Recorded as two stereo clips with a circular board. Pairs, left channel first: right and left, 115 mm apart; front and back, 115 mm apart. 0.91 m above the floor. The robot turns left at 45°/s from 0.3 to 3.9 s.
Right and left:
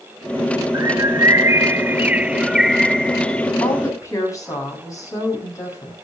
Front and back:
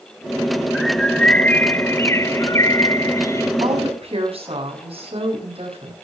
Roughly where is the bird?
Left.